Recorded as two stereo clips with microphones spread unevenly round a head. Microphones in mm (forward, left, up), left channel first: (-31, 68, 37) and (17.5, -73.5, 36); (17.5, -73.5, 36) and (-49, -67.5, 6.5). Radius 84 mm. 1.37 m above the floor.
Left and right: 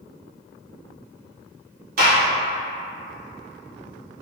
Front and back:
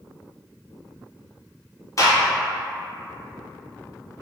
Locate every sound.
2.0 s a gunshot: 55° right, 1.0 m